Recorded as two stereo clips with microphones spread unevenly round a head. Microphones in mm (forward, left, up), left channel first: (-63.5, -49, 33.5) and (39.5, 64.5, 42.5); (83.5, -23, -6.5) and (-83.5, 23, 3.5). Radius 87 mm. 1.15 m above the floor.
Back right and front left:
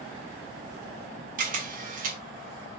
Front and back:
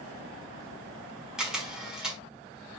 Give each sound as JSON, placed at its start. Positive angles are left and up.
{"t": 1.4, "sound": "a camera shutter", "azimuth_deg": 80, "distance_m": 1.3}